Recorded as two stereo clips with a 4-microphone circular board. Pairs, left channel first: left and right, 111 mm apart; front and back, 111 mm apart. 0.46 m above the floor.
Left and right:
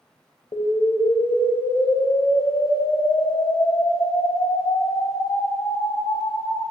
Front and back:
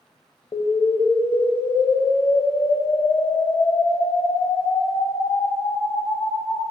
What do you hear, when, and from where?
0.5 s an explosion: 50° left, 0.9 m